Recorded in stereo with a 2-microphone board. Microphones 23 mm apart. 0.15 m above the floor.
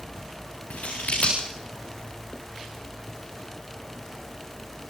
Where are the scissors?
80° left, 8 m.